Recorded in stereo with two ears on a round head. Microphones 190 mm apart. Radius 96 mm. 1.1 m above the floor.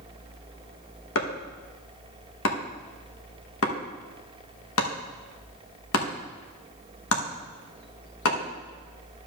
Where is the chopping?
70° left (ahead or behind), 1.2 m.